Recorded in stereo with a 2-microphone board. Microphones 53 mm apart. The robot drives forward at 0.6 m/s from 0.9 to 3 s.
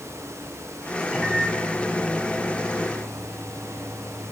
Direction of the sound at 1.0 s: 10° right (ahead or behind).